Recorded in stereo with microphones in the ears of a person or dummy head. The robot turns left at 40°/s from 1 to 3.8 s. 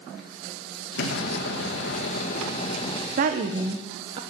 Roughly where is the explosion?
Behind left.